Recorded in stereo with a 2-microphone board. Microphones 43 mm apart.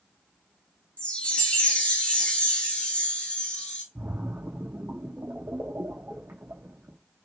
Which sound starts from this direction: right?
A splash, at 4.0 s.